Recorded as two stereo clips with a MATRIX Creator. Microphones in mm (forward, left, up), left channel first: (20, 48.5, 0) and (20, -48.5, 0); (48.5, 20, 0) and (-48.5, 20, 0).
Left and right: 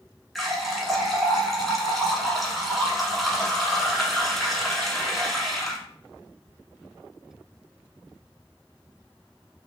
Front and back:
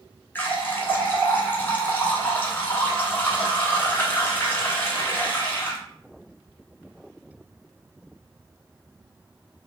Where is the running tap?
Straight ahead, 0.7 m.